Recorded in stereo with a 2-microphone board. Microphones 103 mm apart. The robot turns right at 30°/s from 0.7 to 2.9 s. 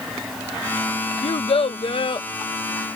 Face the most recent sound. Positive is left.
turn(degrees=145)